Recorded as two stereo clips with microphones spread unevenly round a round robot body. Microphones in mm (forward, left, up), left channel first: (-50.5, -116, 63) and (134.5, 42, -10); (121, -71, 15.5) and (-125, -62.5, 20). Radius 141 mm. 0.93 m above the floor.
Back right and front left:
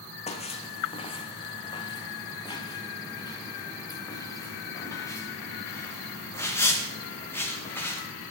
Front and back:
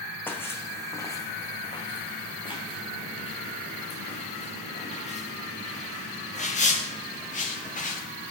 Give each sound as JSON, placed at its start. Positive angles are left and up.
{"t": 0.3, "sound": "footsteps", "azimuth_deg": -85, "distance_m": 2.5}